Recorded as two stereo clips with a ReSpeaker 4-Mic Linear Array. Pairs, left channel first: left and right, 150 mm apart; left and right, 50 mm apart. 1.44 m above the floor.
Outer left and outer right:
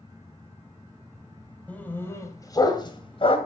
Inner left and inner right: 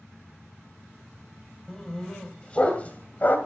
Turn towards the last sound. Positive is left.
turn(degrees=40)  # may be behind; listen again after turning